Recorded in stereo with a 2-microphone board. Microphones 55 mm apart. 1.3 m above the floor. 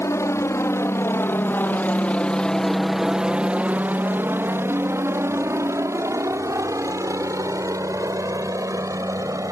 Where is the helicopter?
65° left (ahead or behind); by 9.5 s 75° right (ahead or behind).